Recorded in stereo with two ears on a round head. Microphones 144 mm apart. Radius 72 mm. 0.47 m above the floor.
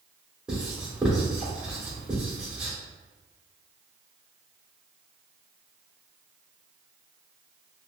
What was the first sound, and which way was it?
Writing, 5° right (ahead or behind).